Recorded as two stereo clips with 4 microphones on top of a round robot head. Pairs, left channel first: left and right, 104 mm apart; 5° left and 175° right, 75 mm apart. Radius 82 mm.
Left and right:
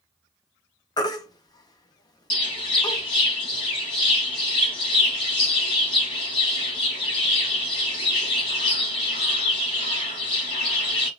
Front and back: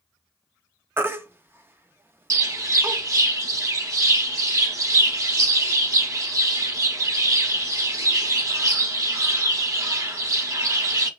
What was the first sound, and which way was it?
A baby crying, 130° left.